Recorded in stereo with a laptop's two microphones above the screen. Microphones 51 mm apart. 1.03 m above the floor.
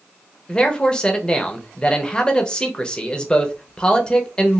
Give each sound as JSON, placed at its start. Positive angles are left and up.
{"t": 0.5, "sound": "a man speaking", "side_deg": 15, "distance_m": 0.7}